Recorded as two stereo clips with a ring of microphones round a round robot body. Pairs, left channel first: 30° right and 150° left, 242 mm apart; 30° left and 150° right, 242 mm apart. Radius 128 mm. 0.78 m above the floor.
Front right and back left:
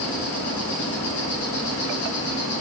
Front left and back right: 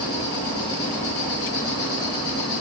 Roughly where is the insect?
Ahead right.